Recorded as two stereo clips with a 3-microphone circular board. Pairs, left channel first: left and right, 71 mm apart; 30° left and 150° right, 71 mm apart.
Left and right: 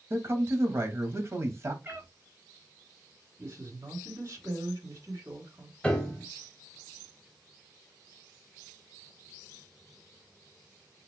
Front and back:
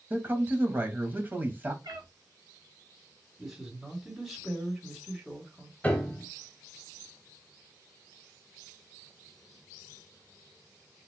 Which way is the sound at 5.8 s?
40° left.